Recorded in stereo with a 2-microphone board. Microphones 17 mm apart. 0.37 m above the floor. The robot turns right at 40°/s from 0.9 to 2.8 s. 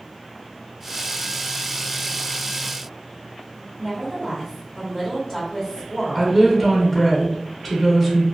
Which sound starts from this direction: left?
A woman speaking, at 3.8 s.